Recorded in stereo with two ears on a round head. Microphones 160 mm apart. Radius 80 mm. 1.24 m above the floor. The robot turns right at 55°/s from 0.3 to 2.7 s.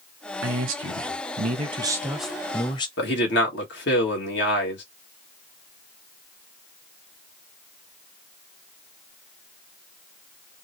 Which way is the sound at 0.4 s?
100° right.